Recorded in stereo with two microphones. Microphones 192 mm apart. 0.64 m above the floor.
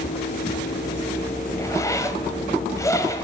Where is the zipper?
15° left (ahead or behind), 1.7 m.